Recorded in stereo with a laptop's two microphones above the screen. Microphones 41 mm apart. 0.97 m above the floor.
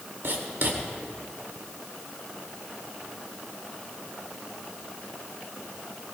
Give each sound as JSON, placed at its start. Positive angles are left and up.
{"t": 0.2, "sound": "writing", "side_deg": -75, "distance_m": 2.5}